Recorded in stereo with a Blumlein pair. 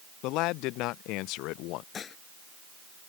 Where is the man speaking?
40° left.